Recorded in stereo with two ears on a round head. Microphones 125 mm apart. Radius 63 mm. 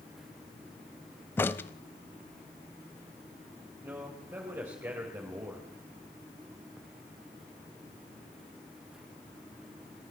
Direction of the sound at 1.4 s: 15° left (ahead or behind).